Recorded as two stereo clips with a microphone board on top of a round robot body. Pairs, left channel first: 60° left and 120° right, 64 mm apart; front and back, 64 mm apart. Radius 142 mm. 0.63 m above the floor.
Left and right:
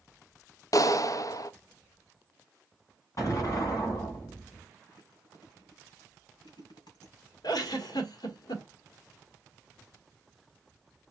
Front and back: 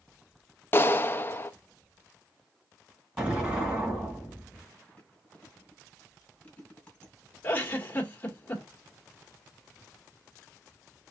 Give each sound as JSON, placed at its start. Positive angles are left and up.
{"t": 0.7, "sound": "a clap", "azimuth_deg": 50, "distance_m": 0.6}
{"t": 3.2, "sound": "an explosion", "azimuth_deg": 105, "distance_m": 2.5}
{"t": 4.9, "sound": "chewing", "azimuth_deg": 70, "distance_m": 2.5}
{"t": 7.4, "sound": "a giggle", "azimuth_deg": 60, "distance_m": 1.4}